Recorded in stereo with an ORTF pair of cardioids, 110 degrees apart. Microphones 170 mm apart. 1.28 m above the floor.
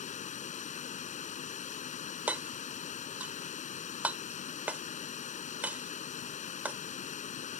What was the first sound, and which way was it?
Running water, 45° left.